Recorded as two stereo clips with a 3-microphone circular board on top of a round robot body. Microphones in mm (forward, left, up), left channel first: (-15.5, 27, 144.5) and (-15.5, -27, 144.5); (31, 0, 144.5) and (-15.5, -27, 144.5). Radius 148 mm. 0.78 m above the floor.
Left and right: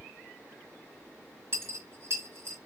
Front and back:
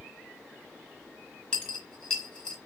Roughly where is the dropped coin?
Ahead right.